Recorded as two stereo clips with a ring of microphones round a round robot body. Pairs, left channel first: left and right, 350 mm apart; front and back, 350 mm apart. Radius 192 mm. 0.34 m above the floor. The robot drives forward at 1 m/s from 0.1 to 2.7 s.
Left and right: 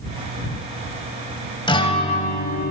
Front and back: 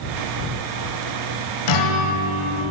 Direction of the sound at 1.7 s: 15° left.